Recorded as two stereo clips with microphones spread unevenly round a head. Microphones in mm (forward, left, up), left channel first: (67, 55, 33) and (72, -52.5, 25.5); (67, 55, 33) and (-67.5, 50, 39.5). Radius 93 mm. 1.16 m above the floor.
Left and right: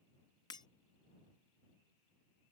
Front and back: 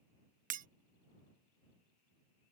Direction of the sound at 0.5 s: 160° left.